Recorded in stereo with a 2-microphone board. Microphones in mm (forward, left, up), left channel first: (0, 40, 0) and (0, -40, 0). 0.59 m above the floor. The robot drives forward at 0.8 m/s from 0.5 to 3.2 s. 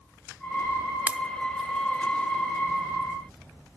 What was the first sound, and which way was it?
A pop, 20° right (ahead or behind).